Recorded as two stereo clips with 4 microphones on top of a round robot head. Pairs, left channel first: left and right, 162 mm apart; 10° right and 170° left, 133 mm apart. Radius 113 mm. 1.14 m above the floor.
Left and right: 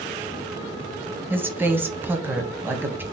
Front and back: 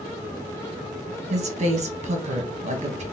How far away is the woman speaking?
About 1.0 m.